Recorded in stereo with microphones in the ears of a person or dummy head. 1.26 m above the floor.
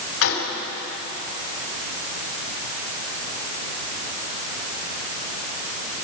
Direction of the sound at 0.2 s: 75° left (ahead or behind).